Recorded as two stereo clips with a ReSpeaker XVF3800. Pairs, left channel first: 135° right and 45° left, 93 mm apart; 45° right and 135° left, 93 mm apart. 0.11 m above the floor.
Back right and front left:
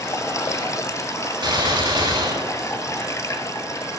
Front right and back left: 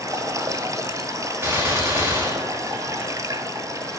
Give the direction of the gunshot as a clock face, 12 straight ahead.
10 o'clock.